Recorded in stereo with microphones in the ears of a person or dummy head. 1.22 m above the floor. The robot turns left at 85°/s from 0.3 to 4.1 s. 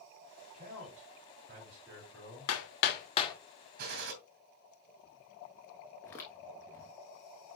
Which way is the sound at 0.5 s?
45° right.